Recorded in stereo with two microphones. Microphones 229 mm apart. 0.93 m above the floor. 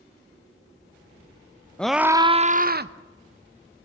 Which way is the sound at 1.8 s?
5° left (ahead or behind).